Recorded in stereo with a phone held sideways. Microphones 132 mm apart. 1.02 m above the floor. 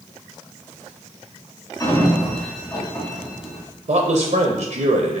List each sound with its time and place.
1.8 s a sliding door: 25° left (ahead or behind), 1.0 m
3.9 s a man speaking: 70° right (ahead or behind), 0.6 m